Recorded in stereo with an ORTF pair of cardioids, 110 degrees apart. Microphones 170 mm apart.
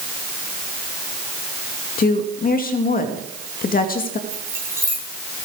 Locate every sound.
2.0 s a woman speaking: 55° left, 2.5 m
4.3 s keys jangling: 15° right, 9 m